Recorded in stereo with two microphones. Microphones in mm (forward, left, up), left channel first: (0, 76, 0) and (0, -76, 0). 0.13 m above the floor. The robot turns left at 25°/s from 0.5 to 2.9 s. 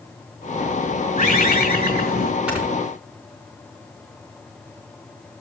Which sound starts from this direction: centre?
Snoring, at 2.5 s.